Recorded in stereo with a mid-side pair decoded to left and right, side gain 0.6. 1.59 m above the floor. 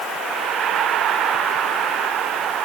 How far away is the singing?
No singing in this recording.